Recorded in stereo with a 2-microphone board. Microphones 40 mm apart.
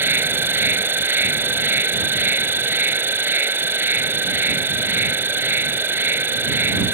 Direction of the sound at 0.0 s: 70° right (ahead or behind).